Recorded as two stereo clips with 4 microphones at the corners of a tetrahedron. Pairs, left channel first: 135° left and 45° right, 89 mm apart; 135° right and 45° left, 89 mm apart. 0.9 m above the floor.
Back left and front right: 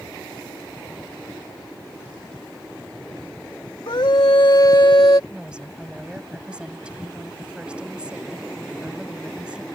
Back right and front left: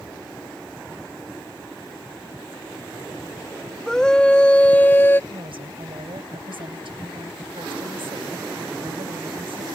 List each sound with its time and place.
3.9 s a scream: 145° left; by 5.2 s 165° left
5.3 s a woman speaking: 35° left